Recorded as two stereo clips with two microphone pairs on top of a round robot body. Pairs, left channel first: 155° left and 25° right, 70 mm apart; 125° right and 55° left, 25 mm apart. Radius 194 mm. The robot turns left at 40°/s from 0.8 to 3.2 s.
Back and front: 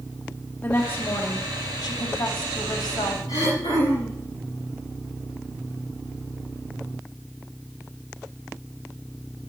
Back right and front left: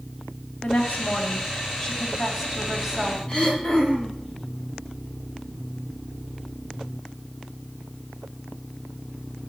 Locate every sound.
0.6 s a woman speaking: 135° right, 3.5 m; by 3.2 s 130° left, 3.5 m
3.3 s throat clearing: straight behind, 7.5 m